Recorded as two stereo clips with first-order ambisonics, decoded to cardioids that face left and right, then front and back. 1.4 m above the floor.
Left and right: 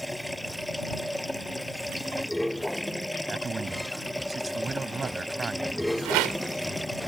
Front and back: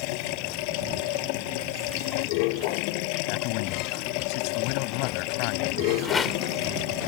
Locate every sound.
0.0 s running water: straight ahead
3.3 s a man speaking: 15° right
6.0 s a rattle: 70° right